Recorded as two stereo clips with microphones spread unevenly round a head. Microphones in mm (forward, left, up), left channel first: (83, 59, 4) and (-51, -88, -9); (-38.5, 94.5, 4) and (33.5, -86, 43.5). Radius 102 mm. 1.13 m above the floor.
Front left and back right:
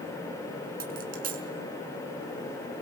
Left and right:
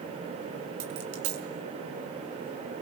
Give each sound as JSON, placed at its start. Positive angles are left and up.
{"t": 0.8, "sound": "a dropped coin", "azimuth_deg": -85, "distance_m": 5.0}